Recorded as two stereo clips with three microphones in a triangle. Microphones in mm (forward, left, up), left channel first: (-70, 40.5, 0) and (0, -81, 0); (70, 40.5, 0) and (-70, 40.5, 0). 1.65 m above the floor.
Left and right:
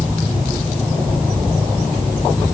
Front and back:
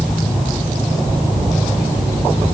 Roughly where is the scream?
I don't hear a scream.